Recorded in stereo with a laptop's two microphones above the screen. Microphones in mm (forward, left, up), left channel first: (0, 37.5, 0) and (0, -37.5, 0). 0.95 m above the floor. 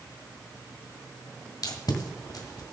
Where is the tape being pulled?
60° left (ahead or behind), 1.6 m.